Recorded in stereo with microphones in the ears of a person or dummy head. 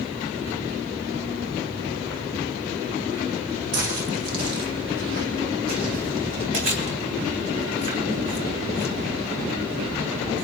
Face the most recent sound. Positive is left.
turn(degrees=-40)  # may be behind; listen again after turning